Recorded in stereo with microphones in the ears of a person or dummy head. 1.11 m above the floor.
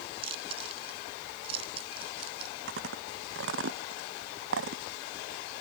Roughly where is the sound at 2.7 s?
Right.